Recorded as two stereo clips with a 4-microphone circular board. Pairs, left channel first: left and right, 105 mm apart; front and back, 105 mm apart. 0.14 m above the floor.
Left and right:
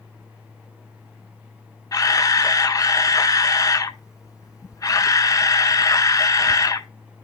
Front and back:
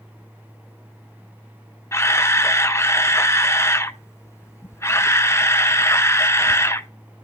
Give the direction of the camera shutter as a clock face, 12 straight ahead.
10 o'clock.